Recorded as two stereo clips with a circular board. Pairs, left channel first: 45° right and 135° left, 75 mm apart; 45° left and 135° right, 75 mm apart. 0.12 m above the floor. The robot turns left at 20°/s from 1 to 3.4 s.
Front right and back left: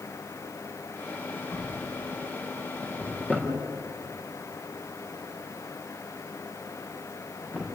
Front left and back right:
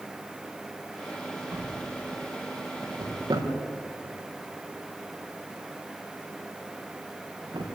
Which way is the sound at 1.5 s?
80° right.